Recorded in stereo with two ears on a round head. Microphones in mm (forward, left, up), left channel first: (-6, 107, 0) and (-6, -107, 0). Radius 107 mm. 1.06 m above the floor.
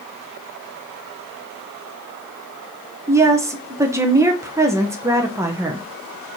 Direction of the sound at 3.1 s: 10° right (ahead or behind).